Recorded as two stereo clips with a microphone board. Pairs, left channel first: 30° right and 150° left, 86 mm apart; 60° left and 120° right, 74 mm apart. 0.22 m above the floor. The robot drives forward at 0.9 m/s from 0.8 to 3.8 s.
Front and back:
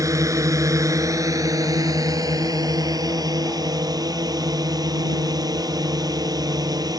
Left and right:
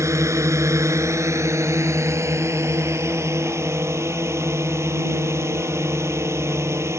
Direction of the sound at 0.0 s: 165° right.